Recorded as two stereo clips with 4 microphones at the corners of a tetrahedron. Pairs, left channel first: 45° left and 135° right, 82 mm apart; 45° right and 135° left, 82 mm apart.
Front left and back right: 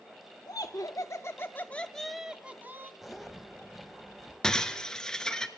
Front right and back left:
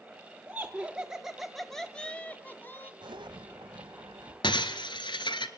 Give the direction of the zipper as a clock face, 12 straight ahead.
7 o'clock.